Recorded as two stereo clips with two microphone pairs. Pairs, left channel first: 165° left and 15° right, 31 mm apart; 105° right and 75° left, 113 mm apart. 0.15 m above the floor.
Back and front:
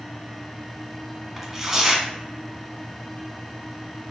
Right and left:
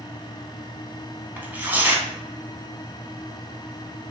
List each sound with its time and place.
1.4 s tearing paper: 40° left, 0.5 m